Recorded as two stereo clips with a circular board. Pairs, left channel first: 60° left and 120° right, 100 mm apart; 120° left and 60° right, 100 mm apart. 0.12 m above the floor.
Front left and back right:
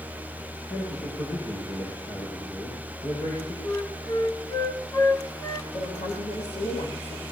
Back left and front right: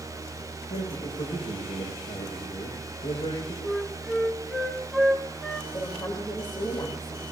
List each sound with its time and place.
0.7 s a man speaking: 100° left, 7.5 m
3.6 s a flute: 40° left, 1.5 m
5.7 s a woman speaking: 70° left, 5.5 m